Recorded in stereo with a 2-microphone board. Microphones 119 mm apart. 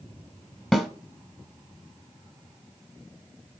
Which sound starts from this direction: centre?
A snare drum, at 0.7 s.